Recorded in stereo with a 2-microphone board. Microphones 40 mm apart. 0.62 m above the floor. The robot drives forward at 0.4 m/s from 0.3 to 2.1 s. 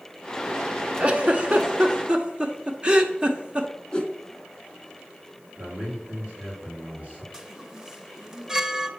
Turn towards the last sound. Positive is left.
turn(degrees=-10)  # may be behind; listen again after turning